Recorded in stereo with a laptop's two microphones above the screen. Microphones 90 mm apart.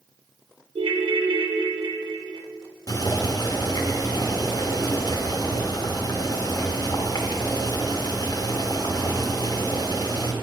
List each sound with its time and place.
0.8 s a ringtone: 70° right (ahead or behind), 0.6 m
2.9 s boiling: 45° left (ahead or behind), 0.9 m